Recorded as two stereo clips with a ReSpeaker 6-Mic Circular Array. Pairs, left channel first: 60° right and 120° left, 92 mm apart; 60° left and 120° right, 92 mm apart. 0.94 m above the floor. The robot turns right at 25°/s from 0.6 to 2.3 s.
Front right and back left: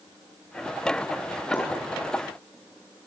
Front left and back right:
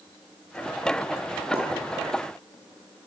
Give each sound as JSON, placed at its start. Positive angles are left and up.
{"t": 1.5, "sound": "a pop", "azimuth_deg": -120, "distance_m": 6.5}